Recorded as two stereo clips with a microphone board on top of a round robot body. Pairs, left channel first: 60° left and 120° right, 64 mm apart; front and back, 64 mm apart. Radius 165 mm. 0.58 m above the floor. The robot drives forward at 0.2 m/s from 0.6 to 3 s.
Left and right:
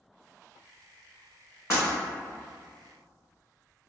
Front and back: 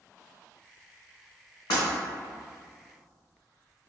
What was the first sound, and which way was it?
Breaking glass, 5° left.